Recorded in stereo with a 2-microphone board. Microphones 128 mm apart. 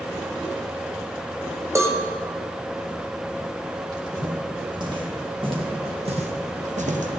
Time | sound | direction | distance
1.8 | a cowbell | 25° right (ahead or behind) | 1.5 m
3.9 | footsteps | 30° right (ahead or behind) | 6 m